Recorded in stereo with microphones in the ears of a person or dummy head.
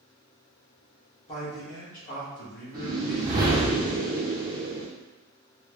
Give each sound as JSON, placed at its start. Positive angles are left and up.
{"t": 1.3, "sound": "a man speaking", "side_deg": 30, "distance_m": 0.9}
{"t": 2.7, "sound": "a whoosh", "side_deg": -25, "distance_m": 0.6}